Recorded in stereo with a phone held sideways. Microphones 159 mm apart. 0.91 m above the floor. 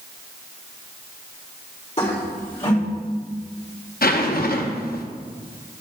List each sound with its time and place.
2.0 s a toilet flushing: 40° left (ahead or behind), 3.5 m
4.0 s a zipper: 70° left (ahead or behind), 0.7 m